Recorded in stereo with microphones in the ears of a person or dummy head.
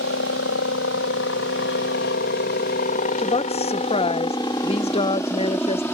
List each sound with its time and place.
0.0 s a helicopter: 65° left (ahead or behind); by 6.0 s 5° left (ahead or behind)
3.2 s a woman speaking: 25° left (ahead or behind)